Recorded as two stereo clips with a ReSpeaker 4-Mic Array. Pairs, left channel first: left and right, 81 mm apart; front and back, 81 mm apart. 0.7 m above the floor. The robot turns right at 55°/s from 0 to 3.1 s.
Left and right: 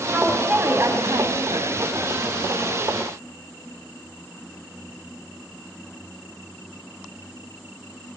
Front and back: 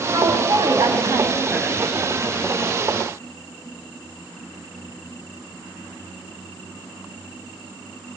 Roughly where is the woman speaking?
Behind.